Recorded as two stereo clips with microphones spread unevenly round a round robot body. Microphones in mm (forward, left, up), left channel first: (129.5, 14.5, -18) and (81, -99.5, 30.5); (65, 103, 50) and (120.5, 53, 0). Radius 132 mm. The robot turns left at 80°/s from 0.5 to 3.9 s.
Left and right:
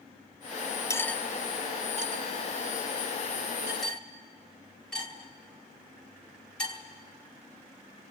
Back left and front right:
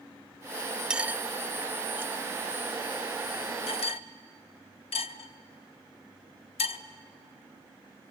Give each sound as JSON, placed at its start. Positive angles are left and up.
{"t": 0.9, "sound": "cutlery clinking", "azimuth_deg": 15, "distance_m": 0.6}